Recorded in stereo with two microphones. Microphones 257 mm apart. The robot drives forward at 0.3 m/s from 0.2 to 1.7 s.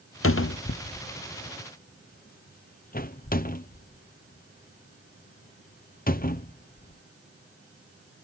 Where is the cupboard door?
55° left (ahead or behind); by 7.0 s 35° left (ahead or behind).